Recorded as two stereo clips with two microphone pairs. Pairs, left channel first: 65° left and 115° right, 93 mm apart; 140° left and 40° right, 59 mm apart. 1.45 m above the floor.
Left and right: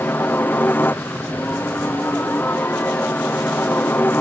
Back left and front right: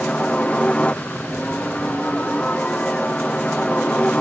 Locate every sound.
0.0 s a helicopter: 100° left